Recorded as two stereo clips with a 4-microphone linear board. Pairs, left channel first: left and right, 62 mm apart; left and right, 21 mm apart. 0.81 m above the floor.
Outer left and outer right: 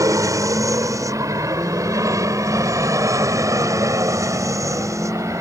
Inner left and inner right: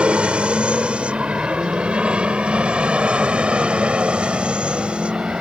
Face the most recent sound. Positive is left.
turn(degrees=-60)  # may be behind; listen again after turning